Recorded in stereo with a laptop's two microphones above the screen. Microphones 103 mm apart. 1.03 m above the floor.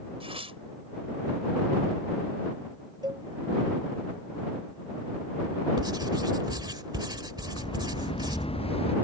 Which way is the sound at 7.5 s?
55° left (ahead or behind).